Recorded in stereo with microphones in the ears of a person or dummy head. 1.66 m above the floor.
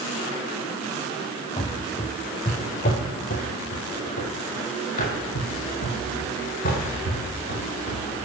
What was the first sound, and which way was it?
Running footsteps, 20° left (ahead or behind).